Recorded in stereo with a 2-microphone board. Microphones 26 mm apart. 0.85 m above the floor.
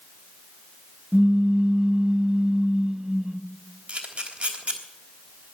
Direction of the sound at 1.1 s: 40° right (ahead or behind).